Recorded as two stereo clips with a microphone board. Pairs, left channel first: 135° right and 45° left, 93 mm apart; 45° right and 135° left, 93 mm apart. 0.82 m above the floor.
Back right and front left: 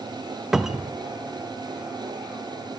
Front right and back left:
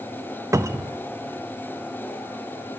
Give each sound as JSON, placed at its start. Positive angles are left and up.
{"t": 0.5, "sound": "a cupboard door", "azimuth_deg": 125, "distance_m": 0.6}